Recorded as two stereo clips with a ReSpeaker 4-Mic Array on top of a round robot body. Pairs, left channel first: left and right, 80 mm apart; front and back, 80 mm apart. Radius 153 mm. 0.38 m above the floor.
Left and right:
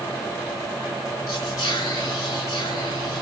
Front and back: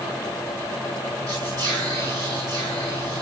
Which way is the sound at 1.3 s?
140° left.